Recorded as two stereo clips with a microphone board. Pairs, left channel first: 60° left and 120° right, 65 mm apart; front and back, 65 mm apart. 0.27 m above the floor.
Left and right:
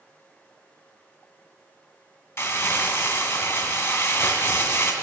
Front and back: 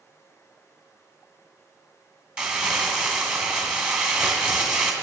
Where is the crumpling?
100° left, 2.0 m.